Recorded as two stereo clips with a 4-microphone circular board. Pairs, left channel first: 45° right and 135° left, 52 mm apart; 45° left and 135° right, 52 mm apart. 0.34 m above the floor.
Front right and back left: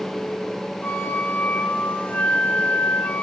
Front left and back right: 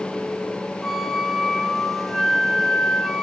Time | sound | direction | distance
0.8 | a flute | 40° right | 0.5 m